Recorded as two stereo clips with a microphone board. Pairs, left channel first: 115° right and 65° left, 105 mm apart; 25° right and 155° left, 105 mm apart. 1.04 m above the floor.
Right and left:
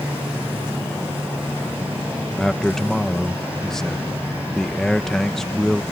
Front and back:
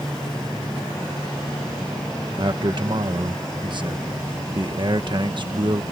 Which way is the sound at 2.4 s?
165° left.